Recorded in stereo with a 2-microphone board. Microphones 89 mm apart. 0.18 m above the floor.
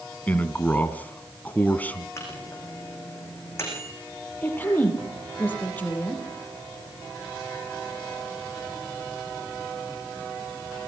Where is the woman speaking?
20° left (ahead or behind), 6 m.